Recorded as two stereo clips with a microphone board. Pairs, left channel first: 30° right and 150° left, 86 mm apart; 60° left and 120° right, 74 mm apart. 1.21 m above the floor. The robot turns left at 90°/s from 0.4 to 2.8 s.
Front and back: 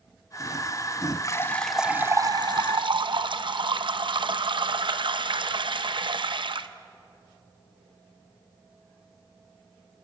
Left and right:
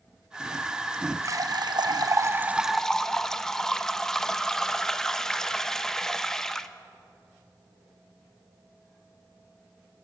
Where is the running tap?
75° right, 0.7 m; by 6.7 s 145° left, 0.7 m.